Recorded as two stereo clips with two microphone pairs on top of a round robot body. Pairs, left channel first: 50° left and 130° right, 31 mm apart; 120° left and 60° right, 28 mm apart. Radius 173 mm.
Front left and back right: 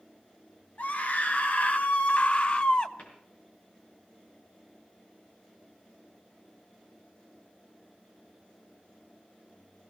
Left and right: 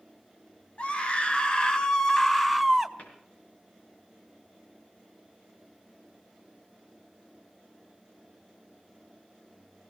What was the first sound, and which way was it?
A scream, 75° left.